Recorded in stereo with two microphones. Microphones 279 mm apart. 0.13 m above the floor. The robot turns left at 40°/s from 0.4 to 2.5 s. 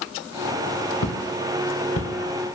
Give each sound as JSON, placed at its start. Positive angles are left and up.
{"t": 1.0, "sound": "footsteps", "side_deg": 80, "distance_m": 0.9}